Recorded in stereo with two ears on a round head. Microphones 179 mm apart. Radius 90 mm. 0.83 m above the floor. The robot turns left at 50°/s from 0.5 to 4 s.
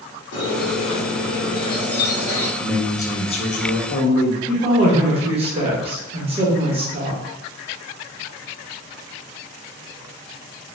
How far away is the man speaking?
About 0.7 m.